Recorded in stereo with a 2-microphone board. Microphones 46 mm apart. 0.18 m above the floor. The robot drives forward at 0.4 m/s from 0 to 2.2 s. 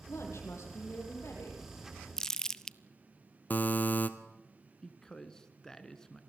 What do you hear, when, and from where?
0.1 s a woman speaking: 80° left, 6.5 m
2.2 s crumpling: 10° left (ahead or behind), 0.6 m
3.5 s a buzzer: 40° left (ahead or behind), 1.3 m
4.8 s a man speaking: 15° left (ahead or behind), 1.8 m